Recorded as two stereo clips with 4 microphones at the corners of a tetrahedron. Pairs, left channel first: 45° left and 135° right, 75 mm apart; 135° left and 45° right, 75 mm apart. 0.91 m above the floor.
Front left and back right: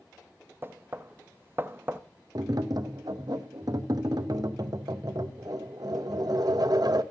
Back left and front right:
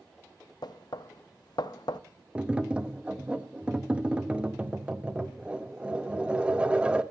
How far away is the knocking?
About 0.6 m.